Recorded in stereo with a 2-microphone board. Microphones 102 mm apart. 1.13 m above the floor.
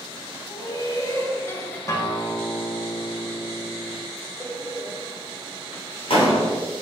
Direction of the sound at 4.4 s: 65° left (ahead or behind).